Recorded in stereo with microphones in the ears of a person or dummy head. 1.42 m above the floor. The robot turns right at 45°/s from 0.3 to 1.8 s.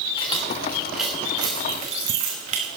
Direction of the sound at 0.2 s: 25° left (ahead or behind).